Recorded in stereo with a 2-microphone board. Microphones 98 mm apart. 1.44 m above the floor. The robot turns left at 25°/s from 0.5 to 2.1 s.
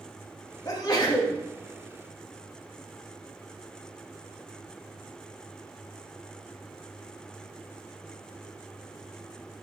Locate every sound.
0.7 s a sneeze: 40° left (ahead or behind), 2 m; by 1.4 s 55° left (ahead or behind), 2 m